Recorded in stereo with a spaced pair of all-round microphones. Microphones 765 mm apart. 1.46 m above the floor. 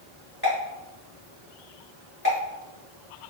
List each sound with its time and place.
0.4 s a pop: 25° left (ahead or behind), 1.8 m